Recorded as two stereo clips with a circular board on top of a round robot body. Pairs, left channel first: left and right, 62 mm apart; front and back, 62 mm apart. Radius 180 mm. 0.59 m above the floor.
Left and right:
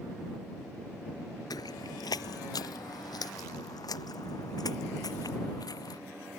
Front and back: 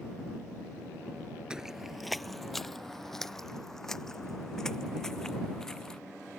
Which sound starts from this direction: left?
Footsteps, at 1.5 s.